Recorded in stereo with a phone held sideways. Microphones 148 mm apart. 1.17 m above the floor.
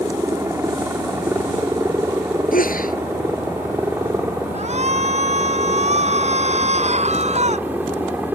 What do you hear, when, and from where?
0.0 s a helicopter: 20° right (ahead or behind); by 8.4 s 10° right (ahead or behind)
2.5 s a sneeze: 70° left (ahead or behind)
4.5 s a shout: 50° right (ahead or behind)